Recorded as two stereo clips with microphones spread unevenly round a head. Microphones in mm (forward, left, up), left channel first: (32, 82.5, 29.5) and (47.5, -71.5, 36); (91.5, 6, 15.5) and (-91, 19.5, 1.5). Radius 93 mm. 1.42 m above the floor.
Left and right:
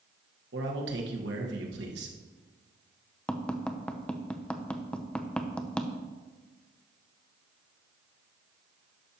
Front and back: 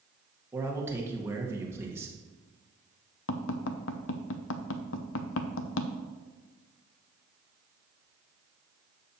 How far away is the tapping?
About 0.7 m.